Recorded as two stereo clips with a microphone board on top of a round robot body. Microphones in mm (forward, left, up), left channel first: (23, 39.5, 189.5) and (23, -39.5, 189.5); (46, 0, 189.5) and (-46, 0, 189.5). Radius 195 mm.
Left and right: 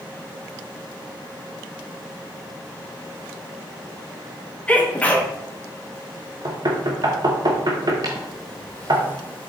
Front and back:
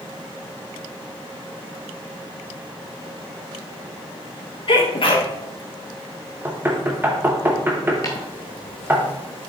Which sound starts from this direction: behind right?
Knocking, at 6.5 s.